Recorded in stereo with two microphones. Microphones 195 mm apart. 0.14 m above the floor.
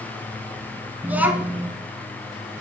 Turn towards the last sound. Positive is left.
turn(degrees=-10)  # may be behind; listen again after turning